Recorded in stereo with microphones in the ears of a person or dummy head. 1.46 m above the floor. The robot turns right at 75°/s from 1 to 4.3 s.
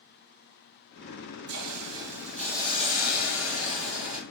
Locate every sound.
1.5 s a hiss: 65° right, 0.8 m; by 4.2 s 140° left, 0.8 m